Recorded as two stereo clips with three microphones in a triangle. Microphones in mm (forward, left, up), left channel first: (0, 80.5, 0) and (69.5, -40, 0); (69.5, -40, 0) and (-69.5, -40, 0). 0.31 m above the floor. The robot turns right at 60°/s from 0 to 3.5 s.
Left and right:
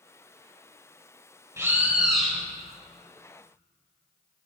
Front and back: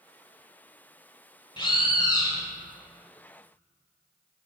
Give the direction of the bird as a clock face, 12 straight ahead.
12 o'clock.